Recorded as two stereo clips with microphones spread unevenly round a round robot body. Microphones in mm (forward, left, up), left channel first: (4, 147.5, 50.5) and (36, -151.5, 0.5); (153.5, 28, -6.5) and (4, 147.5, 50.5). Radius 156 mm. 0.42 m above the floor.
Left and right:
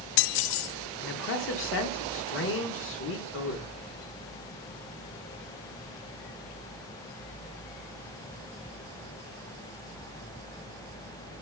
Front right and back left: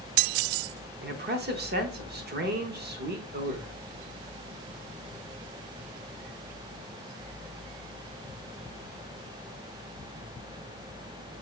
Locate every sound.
1.0 s a man speaking: 125° left, 0.9 m